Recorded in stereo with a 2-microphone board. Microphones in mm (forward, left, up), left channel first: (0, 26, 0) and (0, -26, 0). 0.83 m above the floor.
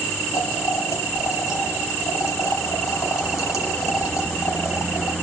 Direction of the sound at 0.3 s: 85° left.